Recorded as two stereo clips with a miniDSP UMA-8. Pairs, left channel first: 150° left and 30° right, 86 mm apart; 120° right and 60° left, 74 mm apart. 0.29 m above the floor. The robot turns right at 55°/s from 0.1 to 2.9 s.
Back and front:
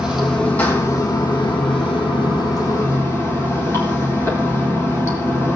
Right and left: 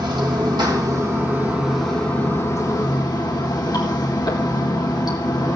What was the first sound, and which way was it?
Running water, 50° left.